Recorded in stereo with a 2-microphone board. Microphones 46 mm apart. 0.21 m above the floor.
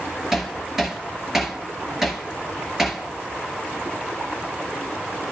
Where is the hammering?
10° right (ahead or behind), 2 m.